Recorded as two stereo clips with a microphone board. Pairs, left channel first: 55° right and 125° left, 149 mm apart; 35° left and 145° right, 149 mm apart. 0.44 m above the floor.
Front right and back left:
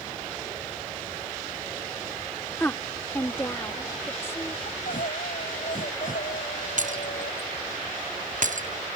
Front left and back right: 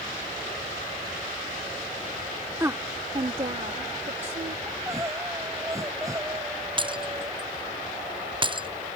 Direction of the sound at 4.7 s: 80° right.